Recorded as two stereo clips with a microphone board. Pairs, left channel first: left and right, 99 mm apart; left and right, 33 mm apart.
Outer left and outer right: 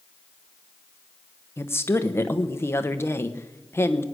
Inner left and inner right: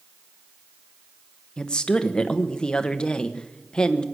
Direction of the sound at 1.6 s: 25° left (ahead or behind).